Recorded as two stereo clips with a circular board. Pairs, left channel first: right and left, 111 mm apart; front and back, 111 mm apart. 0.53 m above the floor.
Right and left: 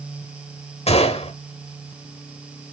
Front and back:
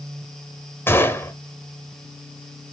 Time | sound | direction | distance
0.9 | a gunshot | 70° right | 0.9 m